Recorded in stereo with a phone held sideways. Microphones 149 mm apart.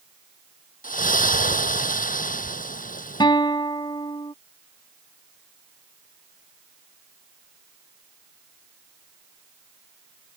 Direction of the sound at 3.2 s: 30° left (ahead or behind).